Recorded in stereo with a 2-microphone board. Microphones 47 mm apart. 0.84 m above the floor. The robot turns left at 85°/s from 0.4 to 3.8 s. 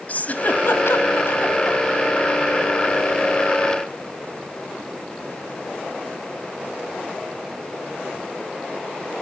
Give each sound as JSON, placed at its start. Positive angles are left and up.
{"t": 0.1, "sound": "a giggle", "side_deg": 40, "distance_m": 2.0}